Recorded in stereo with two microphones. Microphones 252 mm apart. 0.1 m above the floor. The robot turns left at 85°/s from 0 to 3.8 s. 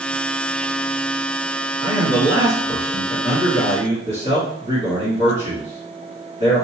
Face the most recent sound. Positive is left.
turn(degrees=-55)